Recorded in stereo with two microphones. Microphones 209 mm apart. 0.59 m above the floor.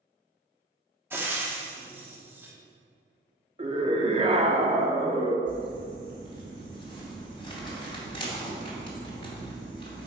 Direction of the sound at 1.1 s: 10° right (ahead or behind).